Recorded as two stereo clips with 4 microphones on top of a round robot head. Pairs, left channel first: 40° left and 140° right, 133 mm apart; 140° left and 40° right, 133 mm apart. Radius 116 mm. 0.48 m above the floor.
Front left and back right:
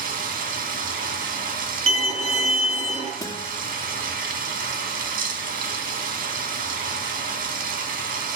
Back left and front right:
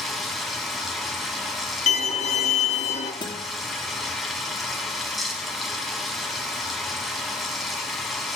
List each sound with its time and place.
0.0 s running water: 130° right, 2.5 m
1.9 s a violin: straight behind, 2.5 m
3.2 s a guitar: 100° left, 1.6 m